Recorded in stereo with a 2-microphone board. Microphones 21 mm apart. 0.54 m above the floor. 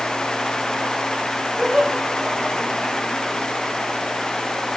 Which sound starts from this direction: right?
Laughter, at 1.6 s.